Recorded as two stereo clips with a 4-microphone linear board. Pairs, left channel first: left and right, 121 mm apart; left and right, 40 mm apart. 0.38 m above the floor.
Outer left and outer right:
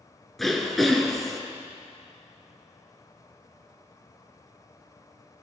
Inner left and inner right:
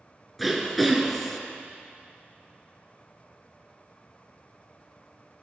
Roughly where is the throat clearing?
Centre.